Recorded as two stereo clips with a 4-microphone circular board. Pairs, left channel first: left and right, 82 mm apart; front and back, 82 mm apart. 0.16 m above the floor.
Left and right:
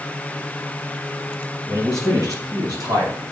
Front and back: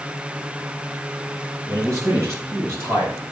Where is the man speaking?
135° right, 3.5 m; by 3.2 s 125° right, 4 m.